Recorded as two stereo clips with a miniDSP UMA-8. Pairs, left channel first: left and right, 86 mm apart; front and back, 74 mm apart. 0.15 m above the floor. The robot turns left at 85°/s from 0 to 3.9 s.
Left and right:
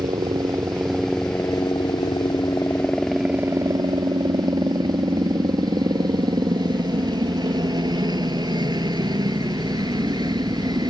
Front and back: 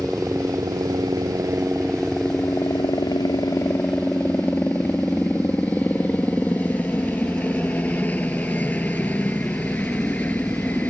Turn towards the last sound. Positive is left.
turn(degrees=-65)